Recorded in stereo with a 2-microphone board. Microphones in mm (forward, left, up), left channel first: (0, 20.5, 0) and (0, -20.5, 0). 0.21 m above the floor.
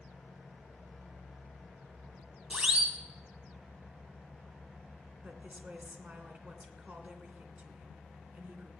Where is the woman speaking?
40° right (ahead or behind), 2.5 m.